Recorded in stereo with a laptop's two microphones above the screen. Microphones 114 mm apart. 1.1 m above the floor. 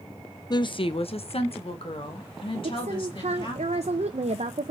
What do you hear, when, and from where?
0.5 s a woman speaking: 35° left (ahead or behind), 0.7 m; by 3.6 s 50° left (ahead or behind), 2.5 m
2.6 s a woman speaking: 75° right (ahead or behind), 0.6 m